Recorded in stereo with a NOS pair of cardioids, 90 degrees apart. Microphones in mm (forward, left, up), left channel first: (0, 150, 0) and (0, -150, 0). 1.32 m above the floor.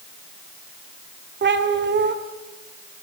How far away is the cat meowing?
About 2.5 m.